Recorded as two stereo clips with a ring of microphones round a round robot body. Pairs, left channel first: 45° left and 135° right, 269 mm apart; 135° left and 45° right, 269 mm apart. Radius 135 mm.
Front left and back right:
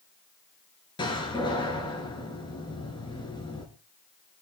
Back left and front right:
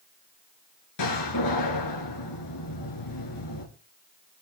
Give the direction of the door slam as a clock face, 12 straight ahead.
8 o'clock.